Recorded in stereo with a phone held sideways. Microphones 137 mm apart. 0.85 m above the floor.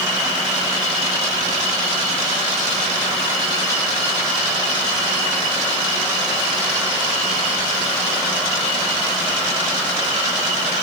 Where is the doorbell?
No doorbell in this recording.